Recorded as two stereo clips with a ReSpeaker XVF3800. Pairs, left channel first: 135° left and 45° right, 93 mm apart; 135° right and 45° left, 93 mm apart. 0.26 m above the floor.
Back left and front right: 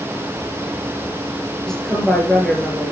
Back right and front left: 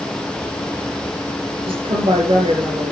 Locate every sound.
1.7 s a woman speaking: 50° left, 5.5 m